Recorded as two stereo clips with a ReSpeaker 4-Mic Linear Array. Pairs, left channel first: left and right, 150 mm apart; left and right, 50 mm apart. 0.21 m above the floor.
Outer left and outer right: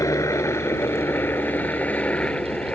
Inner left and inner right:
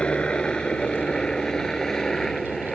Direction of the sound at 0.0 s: 20° left (ahead or behind).